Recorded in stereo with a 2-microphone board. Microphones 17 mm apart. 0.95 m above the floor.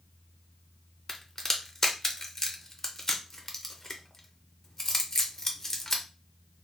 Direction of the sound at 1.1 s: 25° left (ahead or behind).